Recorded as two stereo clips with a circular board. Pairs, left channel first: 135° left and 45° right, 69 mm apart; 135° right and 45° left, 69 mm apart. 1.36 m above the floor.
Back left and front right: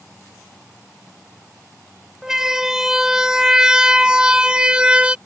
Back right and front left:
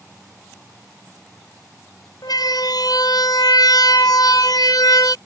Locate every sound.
2.2 s a siren: 125° right; by 5.2 s 120° right